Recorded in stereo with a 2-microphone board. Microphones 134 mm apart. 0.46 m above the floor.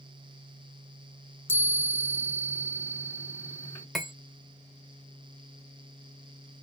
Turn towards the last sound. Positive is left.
turn(degrees=0)  # may be behind; listen again after turning